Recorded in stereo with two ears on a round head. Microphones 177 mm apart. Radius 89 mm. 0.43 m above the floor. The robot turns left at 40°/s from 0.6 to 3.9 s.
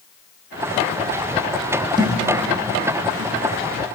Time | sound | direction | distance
2.0 | a thud | 20° right (ahead or behind) | 3 m